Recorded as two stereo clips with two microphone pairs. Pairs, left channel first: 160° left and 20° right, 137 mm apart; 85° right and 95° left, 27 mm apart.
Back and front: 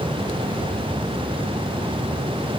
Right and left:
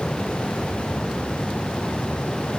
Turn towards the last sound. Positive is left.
No sound to turn to.